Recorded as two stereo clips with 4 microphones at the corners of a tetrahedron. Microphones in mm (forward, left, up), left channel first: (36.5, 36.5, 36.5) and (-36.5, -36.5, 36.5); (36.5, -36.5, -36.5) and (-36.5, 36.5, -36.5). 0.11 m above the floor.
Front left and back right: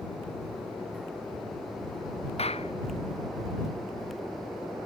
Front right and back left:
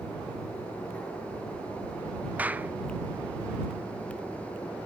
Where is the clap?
60° left.